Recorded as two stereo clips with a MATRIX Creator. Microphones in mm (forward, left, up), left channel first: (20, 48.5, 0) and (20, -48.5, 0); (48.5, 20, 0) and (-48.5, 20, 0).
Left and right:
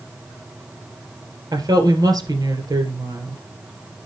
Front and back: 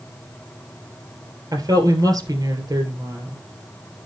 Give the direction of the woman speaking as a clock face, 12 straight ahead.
4 o'clock.